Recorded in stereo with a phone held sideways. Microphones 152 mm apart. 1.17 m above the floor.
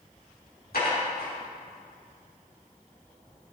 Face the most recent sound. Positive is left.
turn(degrees=85)